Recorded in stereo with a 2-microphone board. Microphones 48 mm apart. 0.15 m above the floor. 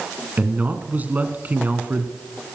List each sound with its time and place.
0.4 s a man speaking: 35° right (ahead or behind), 1.4 m